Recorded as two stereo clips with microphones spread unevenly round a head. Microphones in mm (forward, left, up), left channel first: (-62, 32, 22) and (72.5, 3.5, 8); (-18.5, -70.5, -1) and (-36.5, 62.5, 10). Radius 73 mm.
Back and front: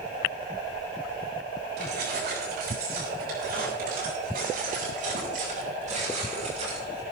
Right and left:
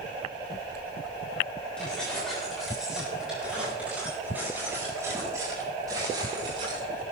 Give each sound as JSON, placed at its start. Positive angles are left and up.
{"t": 1.8, "sound": "keys jangling", "azimuth_deg": 0, "distance_m": 9.0}